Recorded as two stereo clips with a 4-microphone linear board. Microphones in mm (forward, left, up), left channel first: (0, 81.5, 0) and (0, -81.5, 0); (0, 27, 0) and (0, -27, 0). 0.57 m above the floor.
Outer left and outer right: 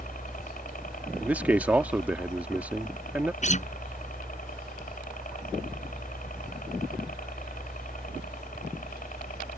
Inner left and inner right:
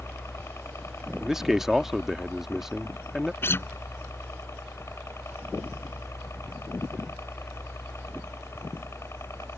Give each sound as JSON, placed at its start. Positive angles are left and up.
{"t": 0.0, "sound": "a helicopter", "side_deg": 50}
{"t": 1.2, "sound": "a man speaking", "side_deg": -10}
{"t": 3.4, "sound": "a guitar", "side_deg": 45}